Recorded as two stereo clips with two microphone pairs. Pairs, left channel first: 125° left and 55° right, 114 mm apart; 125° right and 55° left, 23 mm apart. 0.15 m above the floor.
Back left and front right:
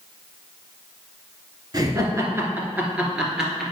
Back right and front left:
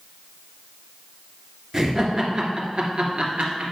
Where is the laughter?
10° right, 1.8 m; by 3.7 s 35° left, 2.5 m.